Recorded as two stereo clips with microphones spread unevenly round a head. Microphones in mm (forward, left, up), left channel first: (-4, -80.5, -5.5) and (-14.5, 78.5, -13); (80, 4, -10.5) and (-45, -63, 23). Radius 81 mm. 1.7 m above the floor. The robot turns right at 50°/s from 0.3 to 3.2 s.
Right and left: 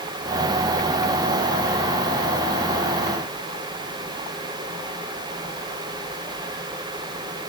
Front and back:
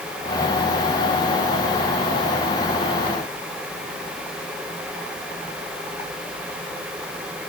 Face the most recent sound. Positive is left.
No sound to turn to.